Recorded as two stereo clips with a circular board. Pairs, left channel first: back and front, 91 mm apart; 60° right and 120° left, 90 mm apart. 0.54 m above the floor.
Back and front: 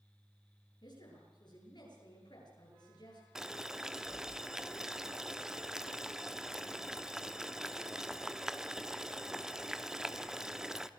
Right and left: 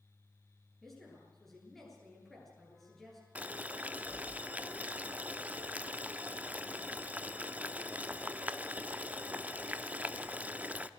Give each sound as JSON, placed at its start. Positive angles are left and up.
{"t": 0.8, "sound": "a woman speaking", "azimuth_deg": -150, "distance_m": 9.5}
{"t": 3.4, "sound": "boiling", "azimuth_deg": 75, "distance_m": 0.8}